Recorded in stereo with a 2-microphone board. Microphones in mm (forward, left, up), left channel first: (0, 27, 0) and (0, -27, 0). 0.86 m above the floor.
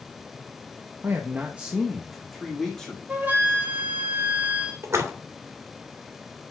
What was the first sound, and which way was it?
A man speaking, 45° right (ahead or behind).